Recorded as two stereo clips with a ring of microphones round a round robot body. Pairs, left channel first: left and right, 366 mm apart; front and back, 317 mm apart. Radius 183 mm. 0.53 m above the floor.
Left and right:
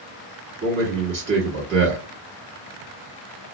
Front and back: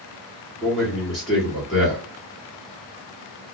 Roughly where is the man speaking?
Right.